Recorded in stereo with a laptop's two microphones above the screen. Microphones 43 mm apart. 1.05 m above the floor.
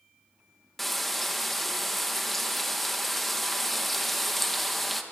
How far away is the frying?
About 1.1 m.